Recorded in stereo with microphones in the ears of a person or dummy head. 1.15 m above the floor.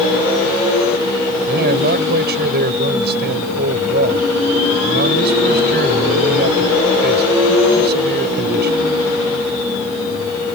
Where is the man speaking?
50° right (ahead or behind).